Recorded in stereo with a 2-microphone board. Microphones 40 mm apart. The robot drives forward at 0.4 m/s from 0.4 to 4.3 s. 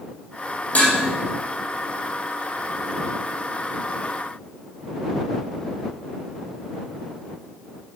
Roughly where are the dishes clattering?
Left.